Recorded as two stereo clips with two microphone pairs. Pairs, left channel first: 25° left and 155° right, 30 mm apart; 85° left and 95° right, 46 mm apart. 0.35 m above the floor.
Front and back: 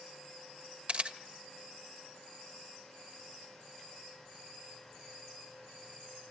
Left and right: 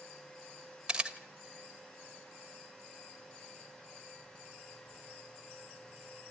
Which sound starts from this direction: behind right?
A camera shutter, at 0.9 s.